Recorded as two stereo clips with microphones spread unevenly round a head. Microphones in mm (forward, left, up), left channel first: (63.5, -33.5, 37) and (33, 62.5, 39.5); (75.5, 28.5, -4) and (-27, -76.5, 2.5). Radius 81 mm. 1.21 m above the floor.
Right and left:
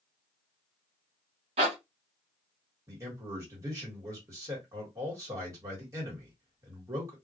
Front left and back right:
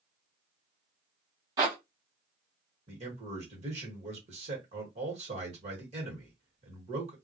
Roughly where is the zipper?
Behind left.